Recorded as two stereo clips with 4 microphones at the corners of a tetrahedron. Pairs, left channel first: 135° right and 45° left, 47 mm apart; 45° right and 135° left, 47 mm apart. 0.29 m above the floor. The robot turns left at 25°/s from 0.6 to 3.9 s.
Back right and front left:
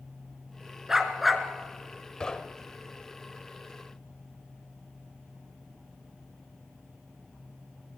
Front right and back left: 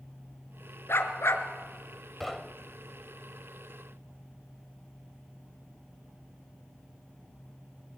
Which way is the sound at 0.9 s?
35° right.